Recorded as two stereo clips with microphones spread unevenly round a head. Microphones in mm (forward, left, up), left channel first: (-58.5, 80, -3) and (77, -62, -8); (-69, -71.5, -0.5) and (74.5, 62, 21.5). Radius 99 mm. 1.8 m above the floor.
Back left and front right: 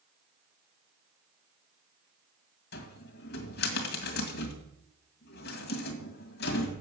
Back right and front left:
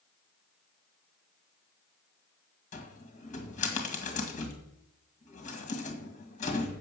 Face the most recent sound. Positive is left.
turn(degrees=170)